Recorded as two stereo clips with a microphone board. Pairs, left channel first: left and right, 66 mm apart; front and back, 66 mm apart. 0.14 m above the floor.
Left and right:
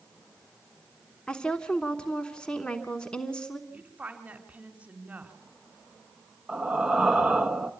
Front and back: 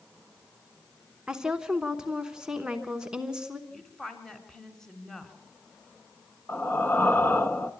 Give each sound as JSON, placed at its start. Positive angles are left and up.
{"t": 1.3, "sound": "a woman speaking", "azimuth_deg": 130, "distance_m": 1.0}
{"t": 3.7, "sound": "a woman speaking", "azimuth_deg": -70, "distance_m": 1.7}
{"t": 6.5, "sound": "breathing", "azimuth_deg": -15, "distance_m": 0.9}